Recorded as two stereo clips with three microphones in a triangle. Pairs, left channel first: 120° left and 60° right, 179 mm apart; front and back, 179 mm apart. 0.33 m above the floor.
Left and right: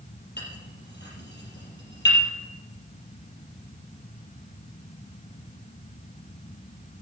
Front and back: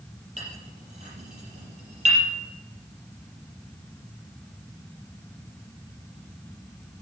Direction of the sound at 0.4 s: 130° left.